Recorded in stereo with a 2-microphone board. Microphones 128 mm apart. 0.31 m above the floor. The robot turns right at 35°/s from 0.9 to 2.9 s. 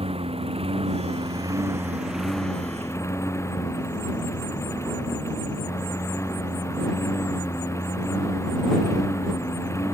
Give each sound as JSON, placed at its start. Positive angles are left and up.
{"t": 0.0, "sound": "a lawn mower", "azimuth_deg": -50}